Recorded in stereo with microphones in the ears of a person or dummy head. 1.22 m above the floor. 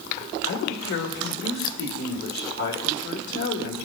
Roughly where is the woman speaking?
Left.